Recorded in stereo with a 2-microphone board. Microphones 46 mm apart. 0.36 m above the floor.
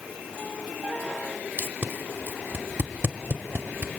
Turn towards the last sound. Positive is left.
turn(degrees=-45)  # may be behind; listen again after turning